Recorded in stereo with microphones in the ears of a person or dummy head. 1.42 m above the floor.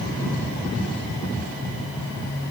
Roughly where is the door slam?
No door slam in this recording.